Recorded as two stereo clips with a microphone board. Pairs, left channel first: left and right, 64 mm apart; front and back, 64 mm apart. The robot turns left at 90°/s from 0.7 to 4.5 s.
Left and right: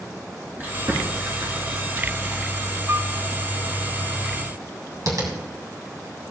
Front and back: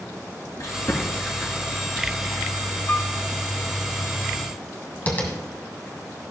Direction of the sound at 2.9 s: 50° right.